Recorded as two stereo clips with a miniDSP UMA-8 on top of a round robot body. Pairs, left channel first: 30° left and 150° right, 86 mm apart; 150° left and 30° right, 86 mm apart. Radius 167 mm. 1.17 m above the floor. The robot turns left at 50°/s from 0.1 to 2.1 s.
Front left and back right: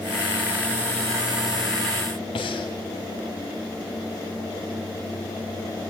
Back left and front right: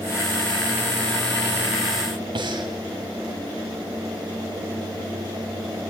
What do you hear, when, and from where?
2.4 s breathing: 5° left, 2.0 m